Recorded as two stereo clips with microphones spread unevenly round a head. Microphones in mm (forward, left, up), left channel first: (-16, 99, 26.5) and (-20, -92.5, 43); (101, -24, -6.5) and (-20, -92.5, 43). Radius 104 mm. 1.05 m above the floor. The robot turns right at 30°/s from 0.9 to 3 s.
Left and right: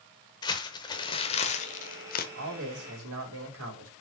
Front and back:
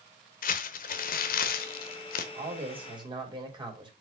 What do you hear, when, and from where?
0.4 s crumpling: 20° left, 0.9 m; by 2.2 s 65° left, 0.9 m
2.4 s a man speaking: 110° right, 3.5 m; by 3.9 s 90° right, 3.5 m